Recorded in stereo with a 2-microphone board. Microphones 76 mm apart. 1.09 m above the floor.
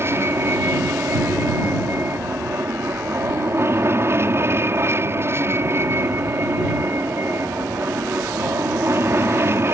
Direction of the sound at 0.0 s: 35° right (ahead or behind).